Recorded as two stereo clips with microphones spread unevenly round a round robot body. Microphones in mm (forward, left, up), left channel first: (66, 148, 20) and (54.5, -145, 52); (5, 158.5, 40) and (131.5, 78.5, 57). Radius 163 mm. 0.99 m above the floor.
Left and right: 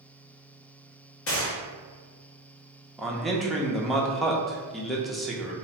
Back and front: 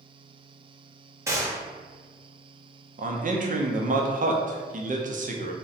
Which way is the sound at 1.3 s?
40° left.